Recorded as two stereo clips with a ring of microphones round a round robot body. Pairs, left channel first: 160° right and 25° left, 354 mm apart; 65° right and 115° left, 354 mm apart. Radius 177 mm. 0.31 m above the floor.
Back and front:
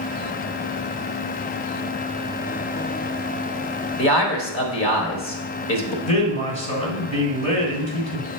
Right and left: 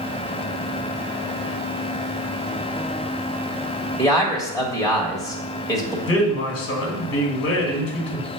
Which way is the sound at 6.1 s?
95° right.